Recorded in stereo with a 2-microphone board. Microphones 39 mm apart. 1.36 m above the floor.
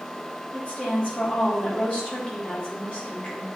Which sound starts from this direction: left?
A woman speaking, at 0.5 s.